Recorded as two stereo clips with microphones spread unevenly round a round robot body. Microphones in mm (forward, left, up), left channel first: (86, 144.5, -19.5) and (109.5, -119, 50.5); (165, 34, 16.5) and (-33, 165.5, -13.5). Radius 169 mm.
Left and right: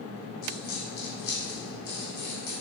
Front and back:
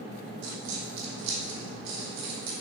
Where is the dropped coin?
145° left, 3 m.